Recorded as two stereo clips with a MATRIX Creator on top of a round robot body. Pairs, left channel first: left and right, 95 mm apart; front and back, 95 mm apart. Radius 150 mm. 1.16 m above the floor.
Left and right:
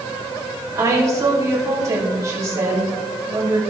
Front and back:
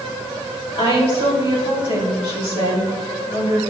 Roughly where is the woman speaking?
Ahead right.